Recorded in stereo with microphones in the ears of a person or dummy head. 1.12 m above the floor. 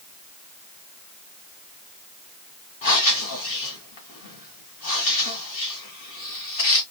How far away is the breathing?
About 1.9 m.